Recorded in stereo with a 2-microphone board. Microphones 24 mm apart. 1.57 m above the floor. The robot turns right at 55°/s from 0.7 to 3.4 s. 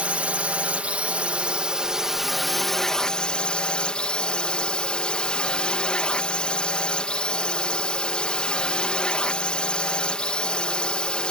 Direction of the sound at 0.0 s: 95° right.